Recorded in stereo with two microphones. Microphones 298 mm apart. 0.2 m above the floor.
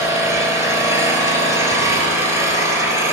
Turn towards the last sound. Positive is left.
turn(degrees=-10)  # may be behind; listen again after turning